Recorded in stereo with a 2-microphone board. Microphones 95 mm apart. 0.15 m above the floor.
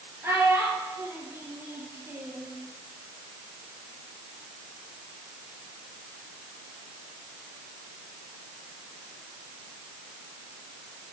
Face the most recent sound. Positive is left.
turn(degrees=-25)  # may be behind; listen again after turning